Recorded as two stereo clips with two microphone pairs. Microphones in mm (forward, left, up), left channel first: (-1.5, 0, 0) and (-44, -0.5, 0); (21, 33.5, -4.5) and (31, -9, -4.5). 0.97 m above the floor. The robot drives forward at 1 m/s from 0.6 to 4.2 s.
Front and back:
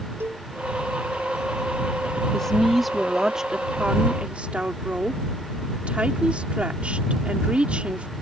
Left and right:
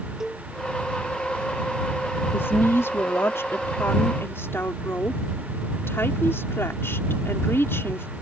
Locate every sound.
0.2 s a cowbell: 155° right
2.3 s a woman speaking: 80° left; by 8.1 s 120° left